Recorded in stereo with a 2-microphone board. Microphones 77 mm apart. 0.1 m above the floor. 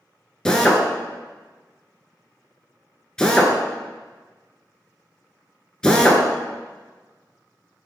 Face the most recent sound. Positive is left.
turn(degrees=10)  # may be behind; listen again after turning